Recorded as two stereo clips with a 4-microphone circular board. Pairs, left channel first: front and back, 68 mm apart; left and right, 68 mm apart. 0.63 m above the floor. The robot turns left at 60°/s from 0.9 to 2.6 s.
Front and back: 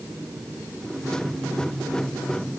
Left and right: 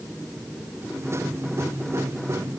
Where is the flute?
No flute in this recording.